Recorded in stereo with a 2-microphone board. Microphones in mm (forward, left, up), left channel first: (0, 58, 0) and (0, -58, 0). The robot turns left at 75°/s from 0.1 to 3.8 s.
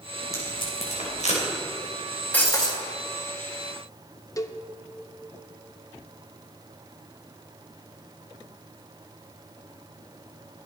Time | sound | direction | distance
0.3 | tape being pulled | 25° left (ahead or behind) | 4 m
2.3 | breaking glass | 165° left | 2.5 m
4.4 | a cowbell | 30° left (ahead or behind) | 0.6 m